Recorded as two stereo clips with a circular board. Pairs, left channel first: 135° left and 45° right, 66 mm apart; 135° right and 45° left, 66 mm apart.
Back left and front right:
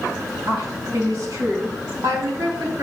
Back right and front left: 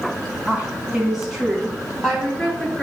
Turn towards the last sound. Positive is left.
turn(degrees=-50)